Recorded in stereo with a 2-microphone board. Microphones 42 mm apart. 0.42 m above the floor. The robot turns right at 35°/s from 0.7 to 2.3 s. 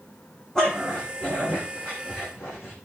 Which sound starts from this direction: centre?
A dog barking, at 0.6 s.